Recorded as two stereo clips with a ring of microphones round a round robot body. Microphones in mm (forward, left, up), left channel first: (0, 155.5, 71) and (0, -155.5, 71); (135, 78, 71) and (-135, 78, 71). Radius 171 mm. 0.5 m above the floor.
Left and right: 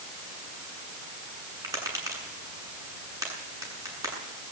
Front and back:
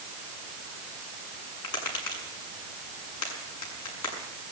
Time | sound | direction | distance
1.6 | tapping | 10° right | 7.5 m